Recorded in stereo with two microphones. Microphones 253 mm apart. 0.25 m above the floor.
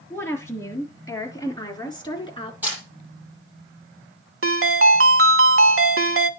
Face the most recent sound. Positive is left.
turn(degrees=-60)  # may be behind; listen again after turning